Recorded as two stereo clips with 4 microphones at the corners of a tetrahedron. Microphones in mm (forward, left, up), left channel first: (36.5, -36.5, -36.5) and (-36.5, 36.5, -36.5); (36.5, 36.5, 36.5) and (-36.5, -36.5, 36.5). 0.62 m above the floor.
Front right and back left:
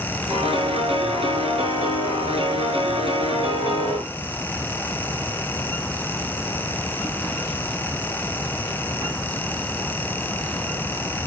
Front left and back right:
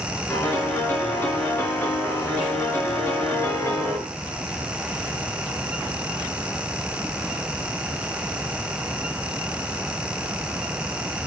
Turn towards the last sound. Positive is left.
turn(degrees=115)